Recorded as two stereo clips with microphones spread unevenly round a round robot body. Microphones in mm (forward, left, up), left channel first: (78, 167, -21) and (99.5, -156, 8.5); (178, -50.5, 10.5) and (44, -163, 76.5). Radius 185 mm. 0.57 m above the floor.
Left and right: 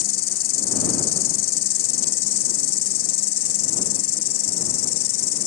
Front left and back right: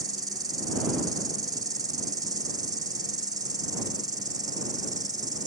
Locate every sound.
0.0 s an insect: 135° left